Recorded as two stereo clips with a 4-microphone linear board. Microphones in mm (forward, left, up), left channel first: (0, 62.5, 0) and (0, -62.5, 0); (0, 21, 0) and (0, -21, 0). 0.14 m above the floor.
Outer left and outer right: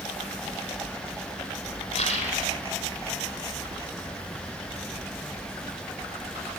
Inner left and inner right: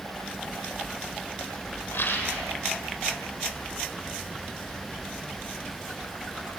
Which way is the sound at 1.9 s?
50° left (ahead or behind).